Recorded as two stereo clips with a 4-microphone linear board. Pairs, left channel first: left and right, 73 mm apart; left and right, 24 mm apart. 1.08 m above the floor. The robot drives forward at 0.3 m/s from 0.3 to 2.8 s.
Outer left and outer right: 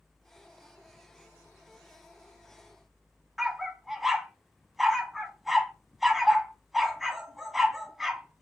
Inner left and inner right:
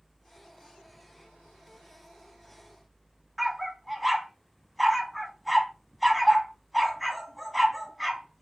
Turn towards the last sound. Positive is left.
turn(degrees=-5)  # may be behind; listen again after turning